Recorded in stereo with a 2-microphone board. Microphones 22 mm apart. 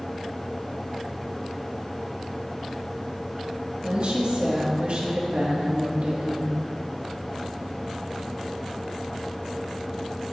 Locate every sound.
3.8 s a woman speaking: 60° right (ahead or behind), 2 m